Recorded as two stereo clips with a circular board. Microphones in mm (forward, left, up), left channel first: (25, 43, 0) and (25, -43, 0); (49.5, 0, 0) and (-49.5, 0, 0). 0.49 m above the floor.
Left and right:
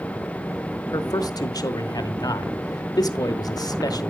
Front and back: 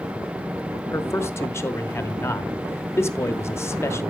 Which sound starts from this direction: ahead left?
A man speaking, at 0.9 s.